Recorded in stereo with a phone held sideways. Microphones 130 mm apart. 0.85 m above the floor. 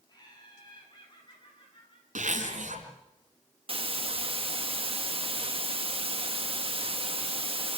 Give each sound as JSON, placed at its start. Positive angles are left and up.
{"t": 0.1, "sound": "laughter", "side_deg": 30, "distance_m": 9.0}
{"t": 2.1, "sound": "a zipper", "side_deg": -80, "distance_m": 4.0}
{"t": 3.7, "sound": "a hiss", "side_deg": -45, "distance_m": 1.3}